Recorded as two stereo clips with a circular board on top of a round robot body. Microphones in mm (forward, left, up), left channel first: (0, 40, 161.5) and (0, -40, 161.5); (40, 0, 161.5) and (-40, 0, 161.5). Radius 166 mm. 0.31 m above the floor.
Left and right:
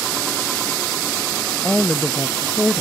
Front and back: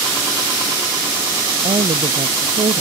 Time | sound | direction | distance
1.6 | a woman speaking | 170° left | ?